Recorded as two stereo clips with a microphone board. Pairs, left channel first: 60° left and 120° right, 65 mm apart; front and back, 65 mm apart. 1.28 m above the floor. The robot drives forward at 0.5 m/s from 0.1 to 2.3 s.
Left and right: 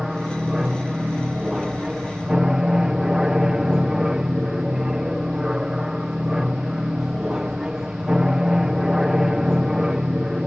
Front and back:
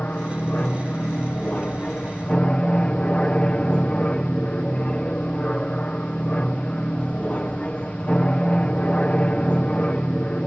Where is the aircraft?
45° right; by 10.5 s 50° right.